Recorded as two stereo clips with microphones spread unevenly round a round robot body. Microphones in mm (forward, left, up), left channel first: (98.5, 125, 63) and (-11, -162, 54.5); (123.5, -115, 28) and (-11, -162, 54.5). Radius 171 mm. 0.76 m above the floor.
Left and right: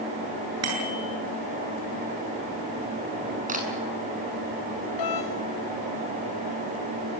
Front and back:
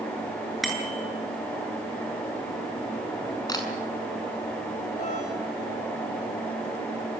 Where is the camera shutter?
45° right, 7 m.